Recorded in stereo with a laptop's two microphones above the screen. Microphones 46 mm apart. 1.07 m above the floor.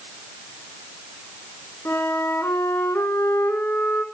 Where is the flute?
80° left, 4 m.